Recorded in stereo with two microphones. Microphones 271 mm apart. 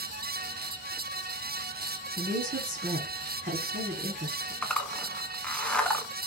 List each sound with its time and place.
2.2 s a woman speaking: 35° right (ahead or behind), 1.5 m
4.6 s a zipper: 5° left (ahead or behind), 0.5 m